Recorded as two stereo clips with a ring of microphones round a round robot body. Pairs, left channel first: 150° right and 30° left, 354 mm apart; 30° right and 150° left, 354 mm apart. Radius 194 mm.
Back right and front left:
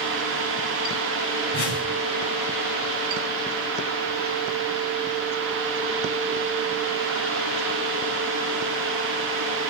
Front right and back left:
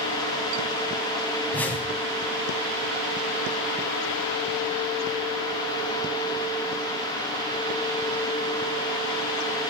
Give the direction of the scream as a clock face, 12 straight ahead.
I don't hear a scream.